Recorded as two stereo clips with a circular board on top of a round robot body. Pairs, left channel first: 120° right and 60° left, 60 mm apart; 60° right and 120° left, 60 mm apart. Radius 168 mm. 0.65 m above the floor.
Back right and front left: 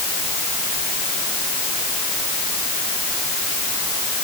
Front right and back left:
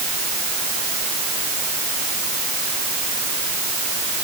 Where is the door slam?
I don't hear a door slam.